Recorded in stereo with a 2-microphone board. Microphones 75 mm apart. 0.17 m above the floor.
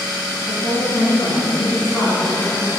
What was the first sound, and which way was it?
A woman speaking, 30° left (ahead or behind).